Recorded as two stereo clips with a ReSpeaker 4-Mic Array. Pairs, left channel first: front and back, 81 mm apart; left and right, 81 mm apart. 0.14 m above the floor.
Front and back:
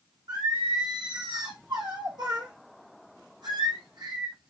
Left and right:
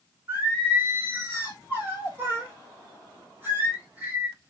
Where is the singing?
150° right, 4.5 m.